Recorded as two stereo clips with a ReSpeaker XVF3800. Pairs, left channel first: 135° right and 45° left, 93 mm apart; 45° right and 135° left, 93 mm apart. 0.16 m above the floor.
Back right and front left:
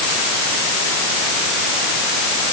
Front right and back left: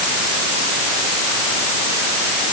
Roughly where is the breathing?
No breathing in this recording.